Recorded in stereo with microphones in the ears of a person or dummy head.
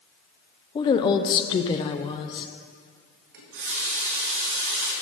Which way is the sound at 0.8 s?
25° left (ahead or behind).